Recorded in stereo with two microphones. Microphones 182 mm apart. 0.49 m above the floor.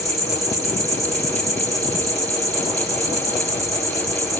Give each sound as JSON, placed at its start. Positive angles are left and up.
{"t": 0.0, "sound": "an insect", "side_deg": -20, "distance_m": 1.0}